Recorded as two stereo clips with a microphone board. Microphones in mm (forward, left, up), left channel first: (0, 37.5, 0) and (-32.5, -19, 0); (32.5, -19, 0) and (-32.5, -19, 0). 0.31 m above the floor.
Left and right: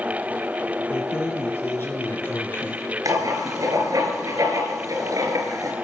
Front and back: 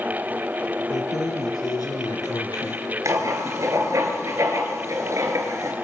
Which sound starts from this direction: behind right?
Writing, at 3.0 s.